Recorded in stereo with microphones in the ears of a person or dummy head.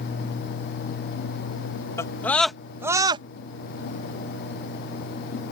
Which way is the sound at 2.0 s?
15° left (ahead or behind).